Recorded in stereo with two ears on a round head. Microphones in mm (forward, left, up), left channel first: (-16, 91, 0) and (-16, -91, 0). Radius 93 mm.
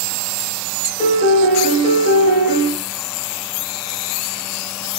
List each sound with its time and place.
1.0 s a piano: 35° left (ahead or behind), 1.1 m